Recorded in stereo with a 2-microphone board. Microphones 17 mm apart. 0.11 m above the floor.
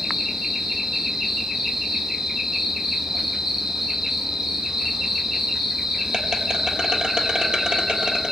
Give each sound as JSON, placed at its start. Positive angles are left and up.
{"t": 0.0, "sound": "an insect", "side_deg": -60, "distance_m": 1.0}